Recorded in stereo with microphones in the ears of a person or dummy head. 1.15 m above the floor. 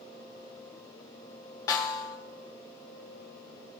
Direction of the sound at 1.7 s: 20° left (ahead or behind).